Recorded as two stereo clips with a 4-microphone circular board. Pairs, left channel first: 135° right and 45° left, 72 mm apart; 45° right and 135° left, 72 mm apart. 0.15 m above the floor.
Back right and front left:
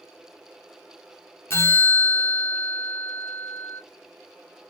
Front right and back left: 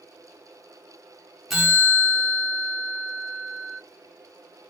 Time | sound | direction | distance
1.5 | a bell | 145° right | 1.4 m